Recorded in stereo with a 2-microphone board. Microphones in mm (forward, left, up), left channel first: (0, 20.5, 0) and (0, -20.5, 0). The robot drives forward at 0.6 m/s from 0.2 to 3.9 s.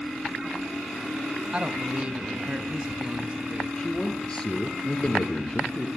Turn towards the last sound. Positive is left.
turn(degrees=20)  # may be behind; listen again after turning